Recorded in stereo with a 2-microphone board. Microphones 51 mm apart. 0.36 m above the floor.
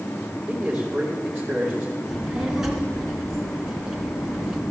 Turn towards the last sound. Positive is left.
turn(degrees=-10)  # may be behind; listen again after turning